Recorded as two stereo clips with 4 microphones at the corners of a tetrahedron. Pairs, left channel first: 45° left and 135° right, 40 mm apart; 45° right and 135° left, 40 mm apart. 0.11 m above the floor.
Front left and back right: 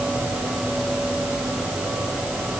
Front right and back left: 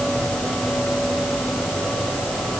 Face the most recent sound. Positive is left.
No sound to turn to.